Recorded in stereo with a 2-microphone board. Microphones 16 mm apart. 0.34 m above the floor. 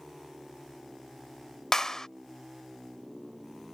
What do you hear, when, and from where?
1.7 s a clap: 40° left (ahead or behind)